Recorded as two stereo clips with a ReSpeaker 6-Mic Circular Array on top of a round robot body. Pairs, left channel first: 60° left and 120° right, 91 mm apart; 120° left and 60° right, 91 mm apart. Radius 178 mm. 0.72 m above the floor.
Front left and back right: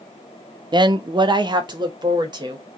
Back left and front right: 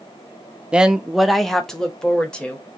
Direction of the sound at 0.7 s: 135° right.